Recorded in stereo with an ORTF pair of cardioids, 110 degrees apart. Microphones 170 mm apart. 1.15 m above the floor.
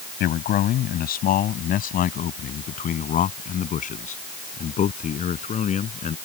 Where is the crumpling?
No crumpling in this recording.